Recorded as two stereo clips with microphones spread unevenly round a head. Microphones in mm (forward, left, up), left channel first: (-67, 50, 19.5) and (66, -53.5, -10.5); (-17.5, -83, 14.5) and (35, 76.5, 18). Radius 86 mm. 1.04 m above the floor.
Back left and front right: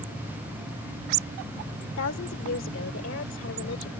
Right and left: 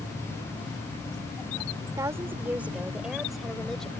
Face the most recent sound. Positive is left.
turn(degrees=165)